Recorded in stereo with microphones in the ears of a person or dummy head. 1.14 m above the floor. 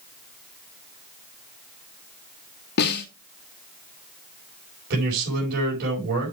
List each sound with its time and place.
2.8 s a snare drum: 55° left (ahead or behind), 1.9 m
4.9 s a man speaking: 55° right (ahead or behind), 4.5 m